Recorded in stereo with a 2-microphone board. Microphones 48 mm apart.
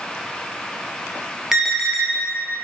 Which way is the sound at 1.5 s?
10° right (ahead or behind).